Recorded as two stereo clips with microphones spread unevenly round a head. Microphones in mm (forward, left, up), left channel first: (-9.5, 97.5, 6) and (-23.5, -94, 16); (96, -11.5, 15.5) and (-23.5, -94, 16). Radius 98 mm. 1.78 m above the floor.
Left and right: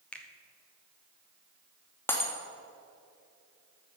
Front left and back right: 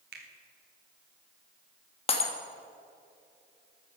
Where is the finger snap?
170° left, 1.3 m.